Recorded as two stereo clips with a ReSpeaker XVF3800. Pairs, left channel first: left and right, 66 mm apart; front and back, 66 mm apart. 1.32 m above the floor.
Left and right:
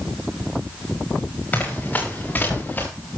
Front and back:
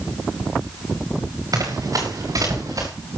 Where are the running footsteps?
155° left, 7.5 m; by 2.9 s 150° left, 7 m.